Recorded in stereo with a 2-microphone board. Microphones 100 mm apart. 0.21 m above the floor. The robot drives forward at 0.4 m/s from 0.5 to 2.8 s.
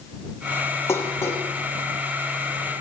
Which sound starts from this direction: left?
Dishes clattering, at 0.9 s.